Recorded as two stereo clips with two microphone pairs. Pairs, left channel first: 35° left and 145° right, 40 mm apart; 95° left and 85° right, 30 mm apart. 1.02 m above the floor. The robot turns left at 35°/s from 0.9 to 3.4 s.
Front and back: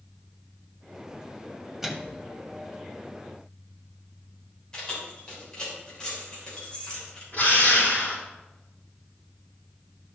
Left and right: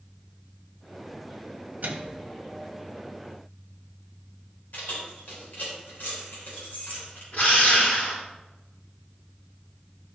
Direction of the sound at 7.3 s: 80° left.